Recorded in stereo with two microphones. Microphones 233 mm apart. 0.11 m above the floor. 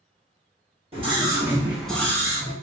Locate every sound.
0.9 s a scream: 25° right (ahead or behind), 1.3 m; by 2.5 s 20° left (ahead or behind), 1.3 m